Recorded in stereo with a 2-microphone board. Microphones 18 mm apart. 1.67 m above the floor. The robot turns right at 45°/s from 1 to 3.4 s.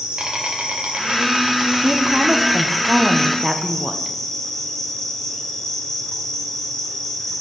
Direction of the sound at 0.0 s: 80° right.